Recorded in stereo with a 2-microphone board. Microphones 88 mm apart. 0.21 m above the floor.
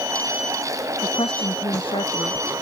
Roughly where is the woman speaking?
Left.